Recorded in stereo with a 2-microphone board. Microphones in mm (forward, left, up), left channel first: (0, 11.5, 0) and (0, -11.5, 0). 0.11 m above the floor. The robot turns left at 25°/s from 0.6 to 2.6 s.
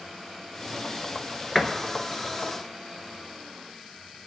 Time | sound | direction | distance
1.6 | a door slam | 10° left (ahead or behind) | 0.9 m